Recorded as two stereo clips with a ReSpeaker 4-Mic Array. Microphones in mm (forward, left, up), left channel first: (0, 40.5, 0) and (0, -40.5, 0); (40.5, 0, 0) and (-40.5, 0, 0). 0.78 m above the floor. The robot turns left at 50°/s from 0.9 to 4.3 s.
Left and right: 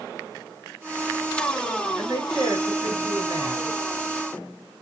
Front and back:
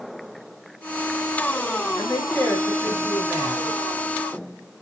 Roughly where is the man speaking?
Ahead right.